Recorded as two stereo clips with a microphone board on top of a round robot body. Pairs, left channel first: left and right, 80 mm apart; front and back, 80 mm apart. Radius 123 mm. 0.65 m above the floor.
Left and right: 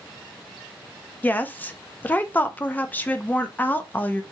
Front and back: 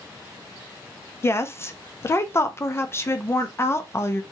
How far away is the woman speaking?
About 0.6 m.